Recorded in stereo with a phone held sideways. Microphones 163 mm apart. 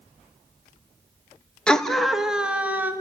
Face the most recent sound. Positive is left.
turn(degrees=-10)  # may be behind; listen again after turning